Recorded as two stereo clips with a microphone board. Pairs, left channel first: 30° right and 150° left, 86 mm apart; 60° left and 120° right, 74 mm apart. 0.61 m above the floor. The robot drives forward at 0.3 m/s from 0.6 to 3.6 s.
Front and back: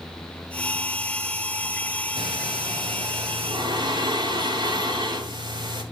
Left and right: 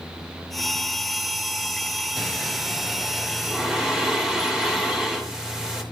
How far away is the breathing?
About 2.5 m.